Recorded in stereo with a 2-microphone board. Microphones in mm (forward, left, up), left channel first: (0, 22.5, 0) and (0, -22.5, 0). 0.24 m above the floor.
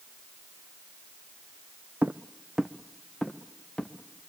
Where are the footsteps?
45° right (ahead or behind), 0.6 m; by 3.9 s 15° left (ahead or behind), 1.6 m.